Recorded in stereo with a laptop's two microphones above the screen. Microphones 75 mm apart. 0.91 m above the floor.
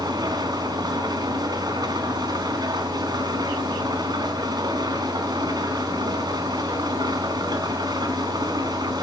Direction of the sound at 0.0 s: 65° right (ahead or behind).